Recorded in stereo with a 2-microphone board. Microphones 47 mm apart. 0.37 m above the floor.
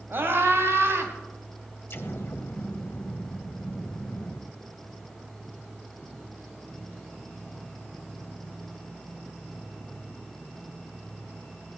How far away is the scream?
About 2.5 m.